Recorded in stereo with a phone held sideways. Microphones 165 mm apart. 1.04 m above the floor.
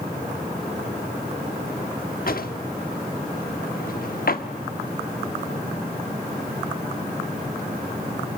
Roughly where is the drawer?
Left.